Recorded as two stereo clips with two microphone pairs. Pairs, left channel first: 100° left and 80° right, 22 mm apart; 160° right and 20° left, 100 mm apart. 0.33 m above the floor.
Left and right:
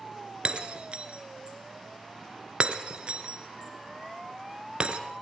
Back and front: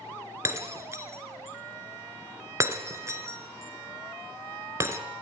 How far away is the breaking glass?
About 1.8 m.